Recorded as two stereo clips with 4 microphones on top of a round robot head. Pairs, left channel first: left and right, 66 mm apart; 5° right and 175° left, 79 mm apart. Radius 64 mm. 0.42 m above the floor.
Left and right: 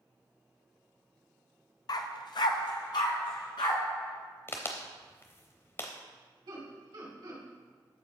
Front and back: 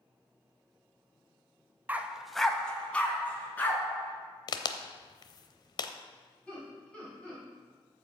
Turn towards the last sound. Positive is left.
turn(degrees=-85)